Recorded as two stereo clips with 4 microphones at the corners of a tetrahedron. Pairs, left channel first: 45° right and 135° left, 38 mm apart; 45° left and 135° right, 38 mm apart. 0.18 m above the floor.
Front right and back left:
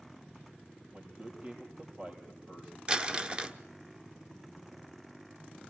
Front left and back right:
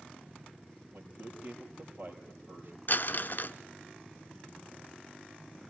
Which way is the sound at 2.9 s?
70° left.